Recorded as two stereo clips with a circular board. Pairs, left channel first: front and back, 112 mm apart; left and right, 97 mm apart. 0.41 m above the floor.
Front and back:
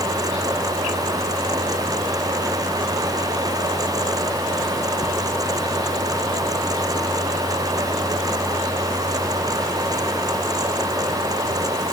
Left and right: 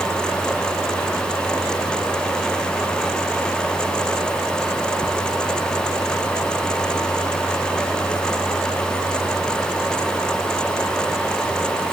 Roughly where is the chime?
I don't hear a chime.